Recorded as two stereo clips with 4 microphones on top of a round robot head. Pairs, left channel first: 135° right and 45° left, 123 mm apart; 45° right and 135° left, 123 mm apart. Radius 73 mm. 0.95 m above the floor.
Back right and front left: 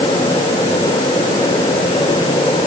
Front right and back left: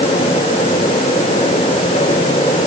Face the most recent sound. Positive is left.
No sound to turn to.